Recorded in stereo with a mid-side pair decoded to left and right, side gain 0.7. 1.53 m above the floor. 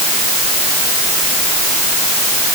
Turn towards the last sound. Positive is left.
No sound to turn to.